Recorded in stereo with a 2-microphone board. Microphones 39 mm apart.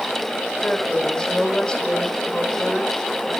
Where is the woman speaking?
20° left (ahead or behind), 3.5 m.